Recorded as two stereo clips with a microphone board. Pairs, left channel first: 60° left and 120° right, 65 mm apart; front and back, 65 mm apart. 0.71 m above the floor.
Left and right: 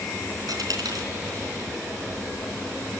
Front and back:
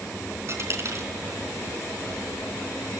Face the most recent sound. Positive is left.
turn(degrees=-135)